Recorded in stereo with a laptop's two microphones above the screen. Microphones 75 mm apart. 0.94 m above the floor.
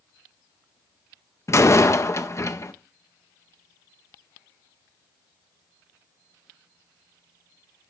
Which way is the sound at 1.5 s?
40° left (ahead or behind).